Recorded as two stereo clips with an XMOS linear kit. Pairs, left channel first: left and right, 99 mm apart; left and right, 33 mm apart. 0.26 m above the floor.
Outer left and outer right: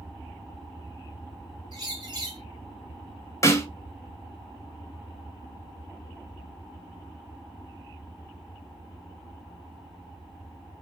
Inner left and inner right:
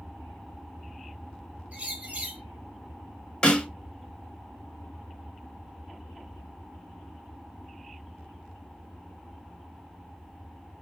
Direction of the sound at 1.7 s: 45° right (ahead or behind).